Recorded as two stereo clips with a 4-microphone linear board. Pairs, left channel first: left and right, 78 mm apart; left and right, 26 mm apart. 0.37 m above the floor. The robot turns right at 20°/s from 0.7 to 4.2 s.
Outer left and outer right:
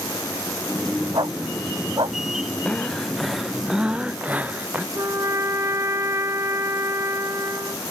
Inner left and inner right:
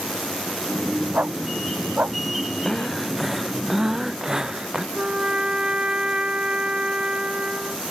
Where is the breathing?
170° left; by 4.8 s 160° right.